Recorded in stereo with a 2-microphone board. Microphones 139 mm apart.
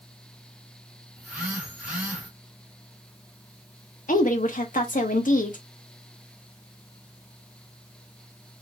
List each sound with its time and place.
1.2 s a phone buzzing: 5° right (ahead or behind), 2 m
4.1 s a woman speaking: 75° left (ahead or behind), 1.2 m